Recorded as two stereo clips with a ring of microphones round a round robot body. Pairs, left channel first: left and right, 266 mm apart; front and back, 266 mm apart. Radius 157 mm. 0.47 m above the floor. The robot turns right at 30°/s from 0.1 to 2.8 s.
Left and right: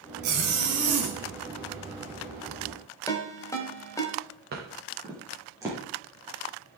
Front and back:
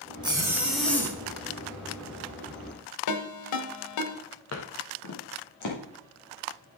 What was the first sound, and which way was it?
A zipper, 105° right.